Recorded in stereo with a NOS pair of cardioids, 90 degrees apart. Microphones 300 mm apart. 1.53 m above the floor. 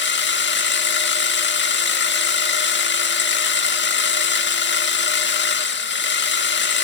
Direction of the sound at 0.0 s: 35° left.